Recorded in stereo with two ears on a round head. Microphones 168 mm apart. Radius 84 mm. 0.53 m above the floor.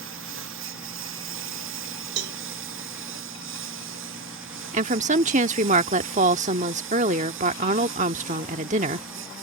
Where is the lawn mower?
75° right (ahead or behind).